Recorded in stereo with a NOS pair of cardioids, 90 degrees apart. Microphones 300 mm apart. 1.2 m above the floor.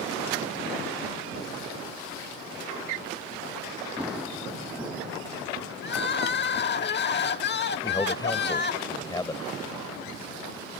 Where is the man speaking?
15° left.